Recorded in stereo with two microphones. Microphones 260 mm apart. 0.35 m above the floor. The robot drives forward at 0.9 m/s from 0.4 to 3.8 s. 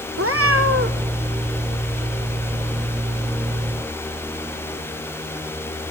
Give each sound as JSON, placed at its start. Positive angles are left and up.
{"t": 0.2, "sound": "a cat meowing", "side_deg": -60, "distance_m": 1.5}